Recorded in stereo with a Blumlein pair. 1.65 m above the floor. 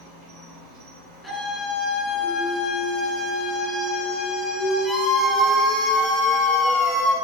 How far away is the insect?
About 5.5 m.